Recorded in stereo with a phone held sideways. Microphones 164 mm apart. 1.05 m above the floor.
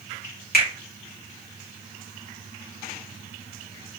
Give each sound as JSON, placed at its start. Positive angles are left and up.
{"t": 0.5, "sound": "a finger snap", "side_deg": 65, "distance_m": 1.8}